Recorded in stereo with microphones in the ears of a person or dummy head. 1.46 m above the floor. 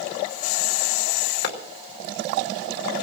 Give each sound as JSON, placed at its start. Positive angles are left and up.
{"t": 1.4, "sound": "a clap", "side_deg": 65, "distance_m": 2.5}